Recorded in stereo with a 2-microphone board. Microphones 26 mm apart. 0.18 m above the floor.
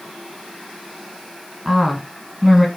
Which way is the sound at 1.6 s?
15° right (ahead or behind).